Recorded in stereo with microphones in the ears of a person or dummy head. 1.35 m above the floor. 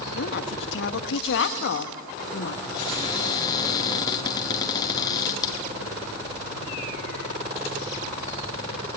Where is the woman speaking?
75° left (ahead or behind), 1.4 m.